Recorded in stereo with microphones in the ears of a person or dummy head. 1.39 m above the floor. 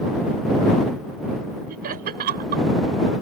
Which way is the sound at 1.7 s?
50° right (ahead or behind).